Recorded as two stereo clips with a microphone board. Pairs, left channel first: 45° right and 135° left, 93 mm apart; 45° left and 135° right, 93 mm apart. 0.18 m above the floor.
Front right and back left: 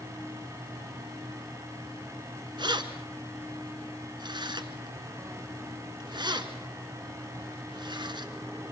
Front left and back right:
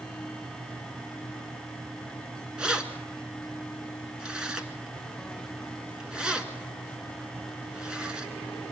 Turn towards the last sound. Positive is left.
turn(degrees=145)